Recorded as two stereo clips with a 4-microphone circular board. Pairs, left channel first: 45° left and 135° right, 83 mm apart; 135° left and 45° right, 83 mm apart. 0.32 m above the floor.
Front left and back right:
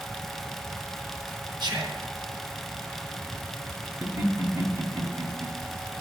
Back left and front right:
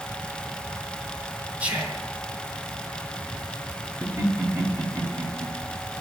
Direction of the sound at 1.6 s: 120° right.